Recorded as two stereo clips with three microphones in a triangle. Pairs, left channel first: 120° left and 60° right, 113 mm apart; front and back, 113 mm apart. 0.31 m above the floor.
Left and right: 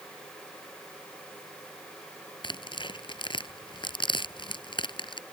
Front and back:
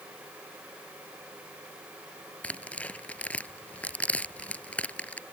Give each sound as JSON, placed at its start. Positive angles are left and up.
{"t": 2.4, "sound": "tearing paper", "azimuth_deg": 80}